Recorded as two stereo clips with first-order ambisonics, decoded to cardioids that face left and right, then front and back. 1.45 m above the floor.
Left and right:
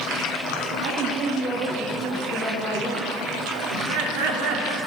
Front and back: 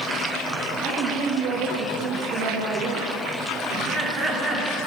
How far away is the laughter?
About 3 m.